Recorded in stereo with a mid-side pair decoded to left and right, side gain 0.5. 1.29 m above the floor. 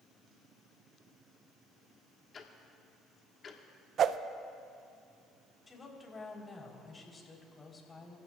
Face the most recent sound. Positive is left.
turn(degrees=30)